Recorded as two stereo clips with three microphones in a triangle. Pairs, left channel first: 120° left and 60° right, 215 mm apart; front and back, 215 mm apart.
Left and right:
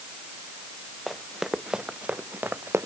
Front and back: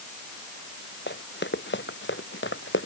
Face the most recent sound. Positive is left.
turn(degrees=15)